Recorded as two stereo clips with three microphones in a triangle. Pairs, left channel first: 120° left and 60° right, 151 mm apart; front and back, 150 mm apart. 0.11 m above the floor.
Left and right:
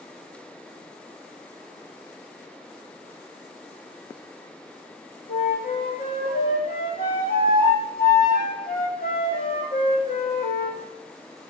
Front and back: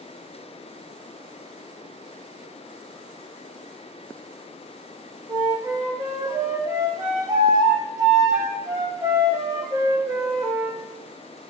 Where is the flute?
115° left, 1.8 m.